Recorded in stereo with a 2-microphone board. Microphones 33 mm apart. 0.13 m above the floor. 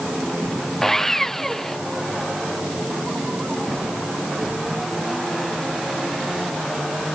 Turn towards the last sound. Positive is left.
turn(degrees=10)  # may be behind; listen again after turning